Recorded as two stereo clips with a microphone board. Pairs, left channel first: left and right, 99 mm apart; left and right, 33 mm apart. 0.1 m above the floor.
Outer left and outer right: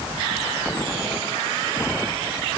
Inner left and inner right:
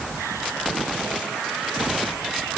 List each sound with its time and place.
Only background noise.